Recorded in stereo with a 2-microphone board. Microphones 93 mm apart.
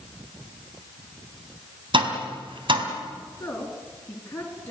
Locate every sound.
1.9 s tapping: 65° right (ahead or behind), 3 m
3.4 s a woman speaking: 20° left (ahead or behind), 5.5 m